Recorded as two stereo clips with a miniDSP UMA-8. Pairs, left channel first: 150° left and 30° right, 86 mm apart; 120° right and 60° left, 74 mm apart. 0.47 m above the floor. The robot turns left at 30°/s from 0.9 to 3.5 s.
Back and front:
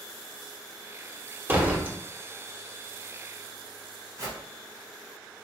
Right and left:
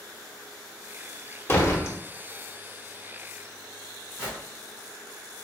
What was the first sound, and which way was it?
A door slam, 80° right.